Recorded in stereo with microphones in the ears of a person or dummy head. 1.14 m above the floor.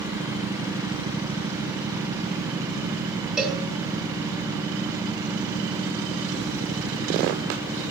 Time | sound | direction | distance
3.4 | a cowbell | centre (ahead or behind) | 1.2 m